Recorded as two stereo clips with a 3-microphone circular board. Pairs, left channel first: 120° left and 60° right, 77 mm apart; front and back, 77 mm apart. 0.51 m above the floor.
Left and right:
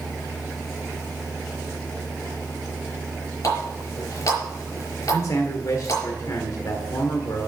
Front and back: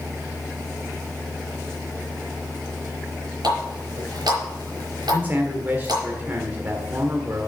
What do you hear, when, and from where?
3.4 s a running tap: 160° left, 5.5 m
5.1 s a man speaking: 125° left, 1.4 m